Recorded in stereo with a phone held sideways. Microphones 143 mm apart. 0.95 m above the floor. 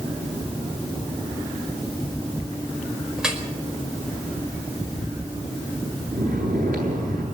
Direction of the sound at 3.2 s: 5° right (ahead or behind).